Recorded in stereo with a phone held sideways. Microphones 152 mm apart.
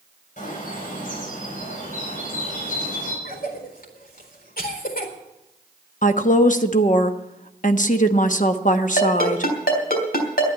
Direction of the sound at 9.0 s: 85° left.